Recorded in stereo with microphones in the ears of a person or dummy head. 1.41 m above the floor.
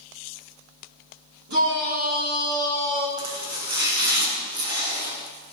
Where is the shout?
60° right (ahead or behind), 4 m.